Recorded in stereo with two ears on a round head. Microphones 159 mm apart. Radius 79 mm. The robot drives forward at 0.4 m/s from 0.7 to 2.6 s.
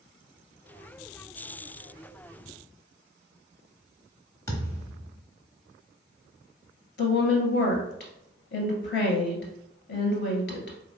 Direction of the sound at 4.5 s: 20° left (ahead or behind).